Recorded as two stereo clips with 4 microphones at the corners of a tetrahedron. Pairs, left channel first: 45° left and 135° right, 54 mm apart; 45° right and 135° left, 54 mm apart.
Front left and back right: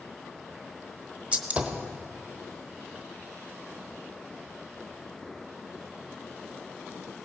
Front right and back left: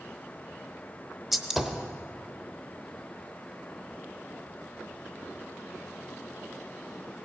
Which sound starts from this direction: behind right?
A gunshot, at 1.3 s.